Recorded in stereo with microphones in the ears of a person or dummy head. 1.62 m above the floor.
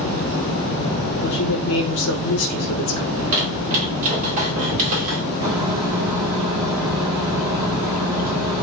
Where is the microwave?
25° right (ahead or behind), 1.2 m.